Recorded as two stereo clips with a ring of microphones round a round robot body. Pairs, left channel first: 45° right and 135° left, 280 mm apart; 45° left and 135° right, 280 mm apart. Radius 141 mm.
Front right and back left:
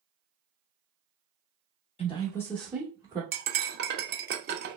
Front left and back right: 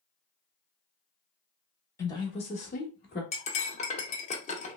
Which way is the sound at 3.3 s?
100° left.